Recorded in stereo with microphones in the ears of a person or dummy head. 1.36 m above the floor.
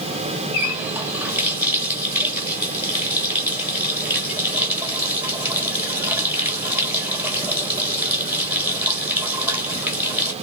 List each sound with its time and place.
0.5 s a running tap: 5° right (ahead or behind), 1.6 m